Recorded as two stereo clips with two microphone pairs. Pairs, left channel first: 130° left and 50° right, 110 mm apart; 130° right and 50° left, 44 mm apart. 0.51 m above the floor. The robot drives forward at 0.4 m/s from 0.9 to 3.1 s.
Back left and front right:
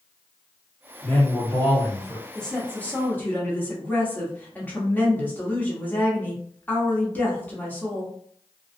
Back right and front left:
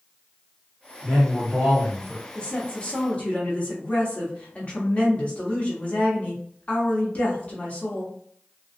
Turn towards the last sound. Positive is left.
turn(degrees=-165)